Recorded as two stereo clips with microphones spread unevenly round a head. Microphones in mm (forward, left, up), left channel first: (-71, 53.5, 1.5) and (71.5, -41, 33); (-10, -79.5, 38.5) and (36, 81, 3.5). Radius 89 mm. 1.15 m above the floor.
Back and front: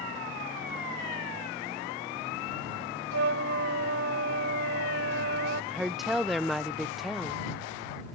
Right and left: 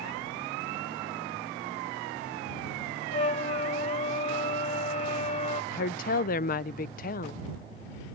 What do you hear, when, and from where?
3.1 s a flute: 55° right
5.7 s a woman speaking: 135° right